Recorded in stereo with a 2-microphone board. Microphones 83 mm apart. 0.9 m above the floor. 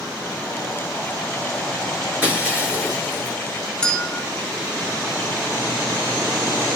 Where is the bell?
10° left (ahead or behind), 1.2 m.